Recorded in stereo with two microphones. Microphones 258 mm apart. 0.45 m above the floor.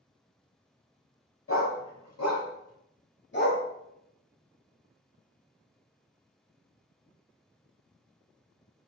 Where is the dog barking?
55° left (ahead or behind), 0.9 m; by 3.6 s 35° left (ahead or behind), 0.9 m.